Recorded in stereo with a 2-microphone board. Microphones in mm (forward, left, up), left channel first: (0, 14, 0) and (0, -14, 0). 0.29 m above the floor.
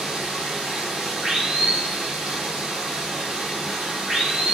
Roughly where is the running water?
Right.